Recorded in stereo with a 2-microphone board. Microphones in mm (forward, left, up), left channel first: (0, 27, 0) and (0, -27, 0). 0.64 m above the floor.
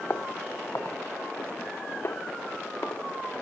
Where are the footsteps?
55° left (ahead or behind); by 3.4 s 50° left (ahead or behind).